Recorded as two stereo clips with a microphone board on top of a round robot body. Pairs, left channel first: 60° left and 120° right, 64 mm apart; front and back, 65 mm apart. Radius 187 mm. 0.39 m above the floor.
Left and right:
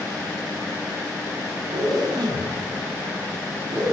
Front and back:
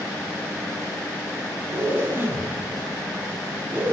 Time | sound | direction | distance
1.7 | a zipper | 120° right | 6.5 m